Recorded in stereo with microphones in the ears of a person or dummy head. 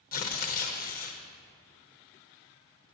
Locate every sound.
0.1 s tearing paper: 45° left (ahead or behind), 0.8 m